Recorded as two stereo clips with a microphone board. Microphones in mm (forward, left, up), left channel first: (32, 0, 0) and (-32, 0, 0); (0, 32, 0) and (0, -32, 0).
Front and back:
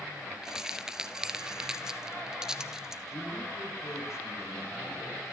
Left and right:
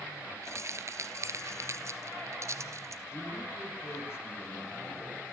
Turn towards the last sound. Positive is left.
turn(degrees=40)